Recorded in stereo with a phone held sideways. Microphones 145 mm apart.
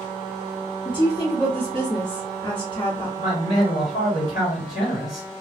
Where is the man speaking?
55° left (ahead or behind), 1.7 m.